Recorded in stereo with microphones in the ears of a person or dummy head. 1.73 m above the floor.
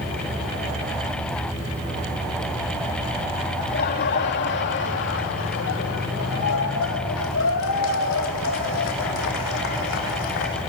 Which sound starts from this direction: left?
Laughter, at 3.6 s.